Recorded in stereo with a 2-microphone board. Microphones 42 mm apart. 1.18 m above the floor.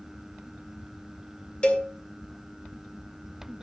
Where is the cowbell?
25° left (ahead or behind), 2.5 m.